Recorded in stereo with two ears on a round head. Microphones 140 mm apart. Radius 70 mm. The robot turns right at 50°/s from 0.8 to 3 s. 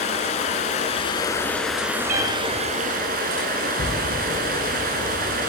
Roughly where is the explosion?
Left.